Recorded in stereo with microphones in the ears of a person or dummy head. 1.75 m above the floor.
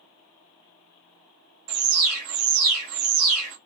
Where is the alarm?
85° right, 1.1 m.